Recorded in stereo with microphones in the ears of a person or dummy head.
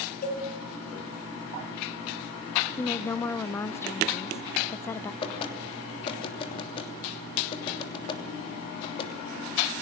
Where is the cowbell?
55° left (ahead or behind), 7 m.